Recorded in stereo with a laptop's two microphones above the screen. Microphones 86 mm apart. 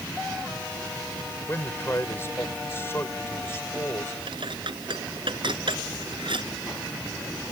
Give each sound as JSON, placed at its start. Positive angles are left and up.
{"t": 1.5, "sound": "a man speaking", "side_deg": 30}
{"t": 4.3, "sound": "dishes clattering", "side_deg": -70}